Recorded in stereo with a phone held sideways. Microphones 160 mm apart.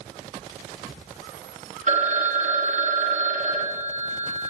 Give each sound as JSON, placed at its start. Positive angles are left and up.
{"t": 1.9, "sound": "a phone ringing", "side_deg": -55, "distance_m": 0.9}